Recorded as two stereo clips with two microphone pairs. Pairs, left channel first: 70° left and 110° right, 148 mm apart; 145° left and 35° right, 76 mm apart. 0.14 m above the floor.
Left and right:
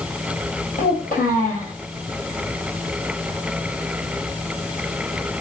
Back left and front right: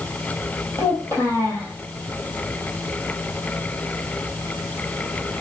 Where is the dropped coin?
I don't hear a dropped coin.